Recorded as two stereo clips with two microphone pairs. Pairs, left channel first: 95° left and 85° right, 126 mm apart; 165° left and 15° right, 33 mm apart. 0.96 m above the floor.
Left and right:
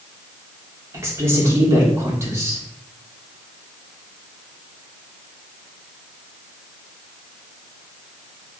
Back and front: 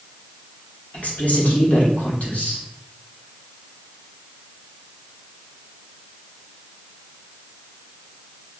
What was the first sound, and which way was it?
A woman speaking, 155° right.